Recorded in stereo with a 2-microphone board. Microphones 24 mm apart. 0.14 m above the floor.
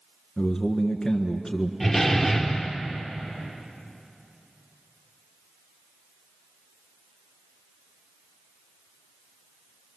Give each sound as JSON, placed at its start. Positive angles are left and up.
{"t": 0.4, "sound": "a man speaking", "side_deg": 20, "distance_m": 1.7}
{"t": 1.8, "sound": "a door slam", "side_deg": 0, "distance_m": 2.5}